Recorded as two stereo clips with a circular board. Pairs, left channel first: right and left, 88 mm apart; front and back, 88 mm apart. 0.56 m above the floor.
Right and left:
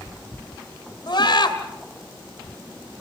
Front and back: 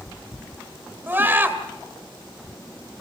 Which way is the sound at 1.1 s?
115° right.